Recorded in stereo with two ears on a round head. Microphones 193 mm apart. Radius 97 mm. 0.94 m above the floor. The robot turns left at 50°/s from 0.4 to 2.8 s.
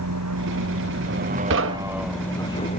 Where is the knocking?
55° right (ahead or behind); by 2.1 s 70° right (ahead or behind).